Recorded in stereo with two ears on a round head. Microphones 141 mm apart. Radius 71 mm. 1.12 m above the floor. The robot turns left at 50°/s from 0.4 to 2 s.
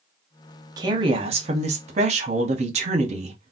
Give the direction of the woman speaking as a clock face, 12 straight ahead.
1 o'clock.